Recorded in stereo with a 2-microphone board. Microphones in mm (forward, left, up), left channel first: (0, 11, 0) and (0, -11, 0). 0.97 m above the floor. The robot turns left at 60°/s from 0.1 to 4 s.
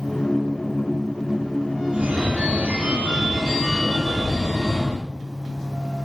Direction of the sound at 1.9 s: 60° right.